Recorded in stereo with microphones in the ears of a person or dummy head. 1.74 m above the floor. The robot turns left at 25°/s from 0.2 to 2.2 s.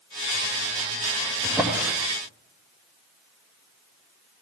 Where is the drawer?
5° right (ahead or behind), 1.3 m; by 1.9 s 10° right (ahead or behind), 1.3 m.